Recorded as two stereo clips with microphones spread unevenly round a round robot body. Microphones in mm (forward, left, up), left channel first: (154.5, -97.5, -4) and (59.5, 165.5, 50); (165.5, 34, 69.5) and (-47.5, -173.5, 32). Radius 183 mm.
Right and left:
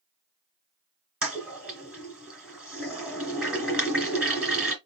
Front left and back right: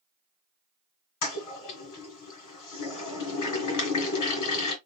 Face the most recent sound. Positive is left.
turn(degrees=25)